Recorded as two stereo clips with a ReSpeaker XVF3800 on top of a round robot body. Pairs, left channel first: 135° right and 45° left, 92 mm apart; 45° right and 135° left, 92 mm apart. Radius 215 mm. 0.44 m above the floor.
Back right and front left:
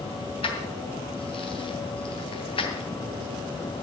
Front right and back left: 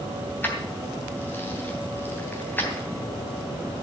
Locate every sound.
0.4 s keys jangling: 115° right, 3 m